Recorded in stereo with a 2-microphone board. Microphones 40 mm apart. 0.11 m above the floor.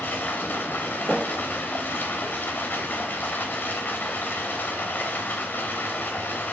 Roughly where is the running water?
Left.